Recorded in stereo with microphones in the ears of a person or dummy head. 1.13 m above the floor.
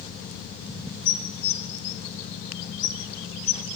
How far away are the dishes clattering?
About 1.7 m.